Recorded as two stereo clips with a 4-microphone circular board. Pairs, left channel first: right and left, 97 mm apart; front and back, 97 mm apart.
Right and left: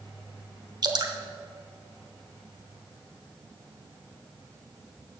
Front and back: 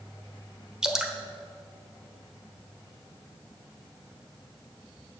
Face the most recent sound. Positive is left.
turn(degrees=100)